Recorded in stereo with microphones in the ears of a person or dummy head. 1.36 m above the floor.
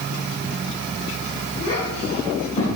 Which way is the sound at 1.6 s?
40° left (ahead or behind).